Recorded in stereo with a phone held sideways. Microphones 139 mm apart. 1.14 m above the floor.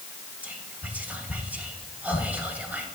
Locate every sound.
0.4 s whispering: 10° right (ahead or behind), 1.1 m